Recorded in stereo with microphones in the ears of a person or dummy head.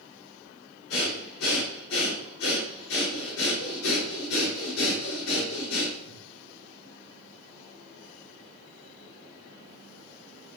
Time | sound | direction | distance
0.9 | breathing | 85° left | 3.5 m